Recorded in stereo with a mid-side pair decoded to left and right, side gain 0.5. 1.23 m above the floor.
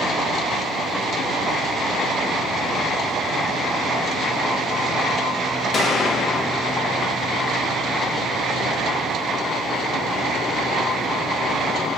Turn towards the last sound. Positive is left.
turn(degrees=40)